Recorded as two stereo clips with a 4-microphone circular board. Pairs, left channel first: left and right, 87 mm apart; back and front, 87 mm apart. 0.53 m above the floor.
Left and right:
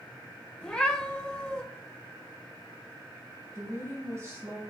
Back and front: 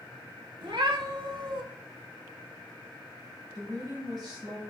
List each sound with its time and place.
0.6 s a cat meowing: 15° left, 1.0 m
3.5 s a woman speaking: 35° right, 2.5 m